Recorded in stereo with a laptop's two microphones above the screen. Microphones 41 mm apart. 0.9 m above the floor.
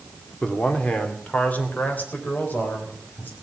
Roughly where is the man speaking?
Left.